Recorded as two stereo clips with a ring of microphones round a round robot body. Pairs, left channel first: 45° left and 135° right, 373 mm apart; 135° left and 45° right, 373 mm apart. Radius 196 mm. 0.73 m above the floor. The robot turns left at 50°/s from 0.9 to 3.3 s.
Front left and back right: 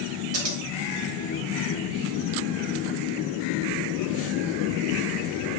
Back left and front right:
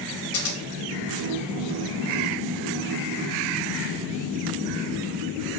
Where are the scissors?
Straight behind, 1.3 m.